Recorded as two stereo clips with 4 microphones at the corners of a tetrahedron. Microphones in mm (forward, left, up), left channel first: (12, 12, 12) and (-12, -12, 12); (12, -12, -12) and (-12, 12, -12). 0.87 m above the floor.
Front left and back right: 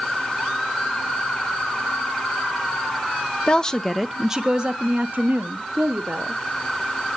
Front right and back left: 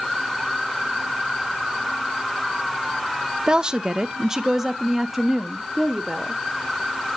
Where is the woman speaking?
85° left, 0.7 m; by 6.4 s 130° right, 1.4 m.